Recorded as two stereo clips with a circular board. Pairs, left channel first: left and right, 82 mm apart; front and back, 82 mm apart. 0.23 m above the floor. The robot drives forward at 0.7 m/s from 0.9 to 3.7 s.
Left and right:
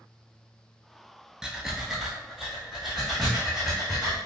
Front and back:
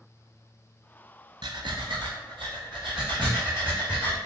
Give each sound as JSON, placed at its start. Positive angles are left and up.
{"t": 1.4, "sound": "breathing", "azimuth_deg": -170, "distance_m": 0.5}